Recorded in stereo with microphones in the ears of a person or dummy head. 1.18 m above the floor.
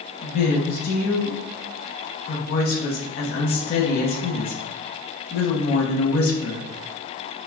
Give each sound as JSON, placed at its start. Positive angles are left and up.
{"t": 0.2, "sound": "a woman speaking", "side_deg": 55, "distance_m": 0.7}